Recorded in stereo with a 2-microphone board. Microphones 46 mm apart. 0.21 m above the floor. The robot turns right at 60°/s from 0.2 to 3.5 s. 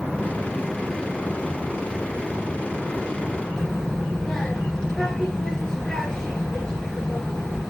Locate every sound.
3.6 s a child speaking: 15° left (ahead or behind), 2.0 m